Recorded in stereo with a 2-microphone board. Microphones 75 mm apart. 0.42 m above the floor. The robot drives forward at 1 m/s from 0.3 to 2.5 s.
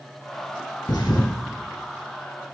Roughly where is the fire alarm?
No fire alarm in this recording.